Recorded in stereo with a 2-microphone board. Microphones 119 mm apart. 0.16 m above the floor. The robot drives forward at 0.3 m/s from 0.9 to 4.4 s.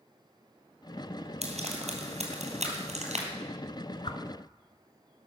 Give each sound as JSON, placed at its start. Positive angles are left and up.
{"t": 1.4, "sound": "frying", "side_deg": -70, "distance_m": 3.0}
{"t": 4.0, "sound": "a whoosh", "side_deg": 50, "distance_m": 1.1}